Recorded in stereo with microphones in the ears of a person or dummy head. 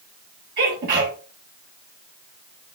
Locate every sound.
0.6 s a sneeze: 60° right (ahead or behind), 2 m